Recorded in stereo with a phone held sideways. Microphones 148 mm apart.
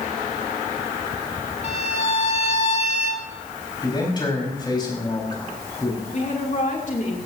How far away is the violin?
About 1.4 m.